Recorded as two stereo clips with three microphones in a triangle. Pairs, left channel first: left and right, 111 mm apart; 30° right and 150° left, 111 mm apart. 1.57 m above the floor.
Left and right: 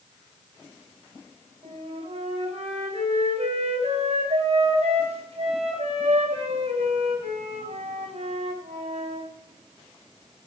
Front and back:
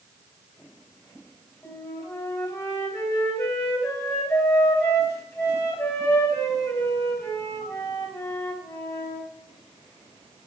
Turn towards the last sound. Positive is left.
turn(degrees=-90)